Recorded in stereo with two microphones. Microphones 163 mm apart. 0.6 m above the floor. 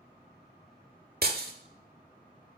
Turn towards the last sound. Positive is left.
turn(degrees=-70)  # may be behind; listen again after turning